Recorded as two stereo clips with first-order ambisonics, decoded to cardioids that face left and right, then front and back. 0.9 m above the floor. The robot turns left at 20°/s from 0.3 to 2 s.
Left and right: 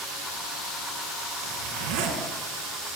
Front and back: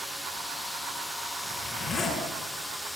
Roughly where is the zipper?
Right.